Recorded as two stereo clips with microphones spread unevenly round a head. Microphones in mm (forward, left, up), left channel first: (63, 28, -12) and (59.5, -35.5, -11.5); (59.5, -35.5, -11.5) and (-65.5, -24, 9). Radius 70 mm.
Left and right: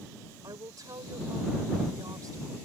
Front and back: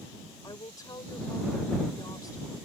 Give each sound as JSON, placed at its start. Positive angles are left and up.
{"t": 0.4, "sound": "a woman speaking", "azimuth_deg": -70}